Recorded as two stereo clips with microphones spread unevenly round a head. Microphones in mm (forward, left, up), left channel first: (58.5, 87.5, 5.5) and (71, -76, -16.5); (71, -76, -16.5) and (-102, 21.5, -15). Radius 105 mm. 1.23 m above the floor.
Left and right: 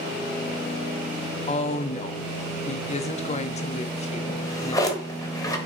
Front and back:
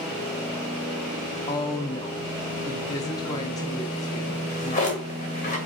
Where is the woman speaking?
45° left, 0.6 m.